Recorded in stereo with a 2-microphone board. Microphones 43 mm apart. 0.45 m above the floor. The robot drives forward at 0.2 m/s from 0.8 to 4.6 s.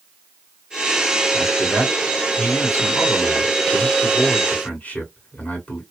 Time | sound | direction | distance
1.3 | a man speaking | 50° left (ahead or behind) | 1.9 m